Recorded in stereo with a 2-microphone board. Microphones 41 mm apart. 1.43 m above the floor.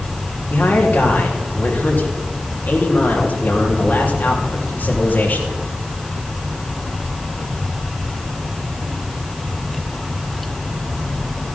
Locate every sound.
0.5 s a man speaking: 50° left (ahead or behind), 3.5 m